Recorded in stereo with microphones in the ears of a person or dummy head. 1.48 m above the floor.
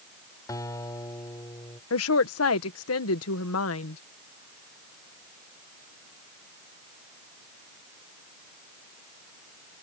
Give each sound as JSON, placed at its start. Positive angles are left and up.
{"t": 0.5, "sound": "a guitar", "side_deg": 20}
{"t": 1.9, "sound": "a woman speaking", "side_deg": 80}